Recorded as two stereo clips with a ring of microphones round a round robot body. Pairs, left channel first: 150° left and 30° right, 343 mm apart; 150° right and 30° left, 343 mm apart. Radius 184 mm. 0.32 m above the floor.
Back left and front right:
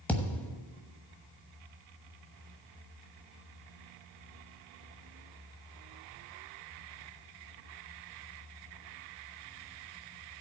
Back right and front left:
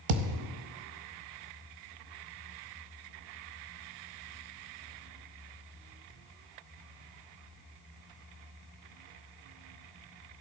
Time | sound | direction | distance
0.1 | a thud | 65° left | 1.0 m